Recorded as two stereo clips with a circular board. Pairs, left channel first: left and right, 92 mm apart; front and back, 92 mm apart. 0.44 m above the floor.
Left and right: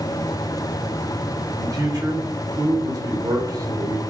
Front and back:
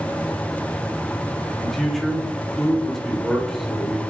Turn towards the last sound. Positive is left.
turn(degrees=-85)